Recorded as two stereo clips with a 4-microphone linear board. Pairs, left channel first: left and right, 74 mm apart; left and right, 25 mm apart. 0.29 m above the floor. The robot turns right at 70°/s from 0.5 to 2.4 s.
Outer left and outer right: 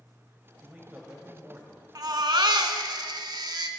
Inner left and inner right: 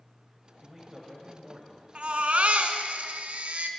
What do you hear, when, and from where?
0.6 s a man speaking: 155° right, 1.2 m; by 1.9 s 70° right, 1.2 m
1.9 s a baby crying: 120° right, 0.7 m; by 3.7 s 90° right, 0.7 m